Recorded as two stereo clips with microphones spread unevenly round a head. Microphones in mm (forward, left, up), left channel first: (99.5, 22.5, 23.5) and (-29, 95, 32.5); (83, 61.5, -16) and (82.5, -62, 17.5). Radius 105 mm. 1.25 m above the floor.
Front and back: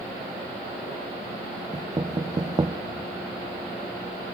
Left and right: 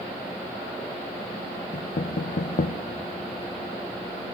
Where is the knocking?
85° left, 0.7 m.